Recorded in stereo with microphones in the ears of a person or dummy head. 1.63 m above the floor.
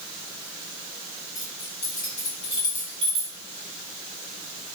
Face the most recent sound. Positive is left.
turn(degrees=-10)  # may be behind; listen again after turning